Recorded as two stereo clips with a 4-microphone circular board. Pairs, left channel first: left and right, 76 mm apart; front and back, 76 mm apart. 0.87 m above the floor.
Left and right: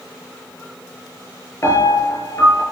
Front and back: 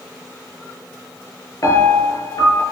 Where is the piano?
40° left, 7.5 m.